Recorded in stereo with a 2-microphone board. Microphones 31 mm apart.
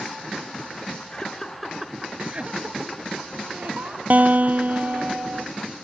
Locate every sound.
1.1 s laughter: 25° left (ahead or behind), 1.7 m; by 4.0 s 65° right (ahead or behind), 4 m
4.1 s a guitar: 55° right (ahead or behind), 0.6 m